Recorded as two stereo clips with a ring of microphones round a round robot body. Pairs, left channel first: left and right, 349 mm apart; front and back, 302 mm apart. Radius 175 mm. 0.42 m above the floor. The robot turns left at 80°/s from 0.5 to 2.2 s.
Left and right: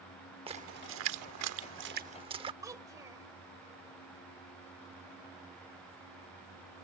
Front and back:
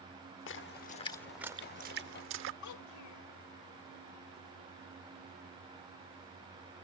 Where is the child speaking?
10° right.